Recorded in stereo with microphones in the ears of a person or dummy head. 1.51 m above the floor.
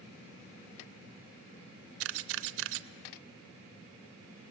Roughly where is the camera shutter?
Right.